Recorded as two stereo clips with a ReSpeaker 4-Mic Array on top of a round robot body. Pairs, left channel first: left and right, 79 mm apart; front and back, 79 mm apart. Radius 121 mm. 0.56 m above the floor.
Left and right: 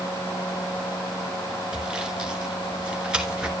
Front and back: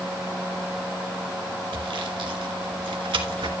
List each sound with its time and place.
1.7 s sawing: 170° right, 2 m